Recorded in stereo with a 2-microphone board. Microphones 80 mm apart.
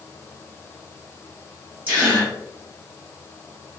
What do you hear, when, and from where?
1.9 s a gasp: 20° right (ahead or behind), 1.4 m